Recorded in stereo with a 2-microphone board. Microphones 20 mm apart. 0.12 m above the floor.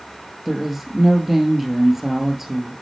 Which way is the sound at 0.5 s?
15° right (ahead or behind).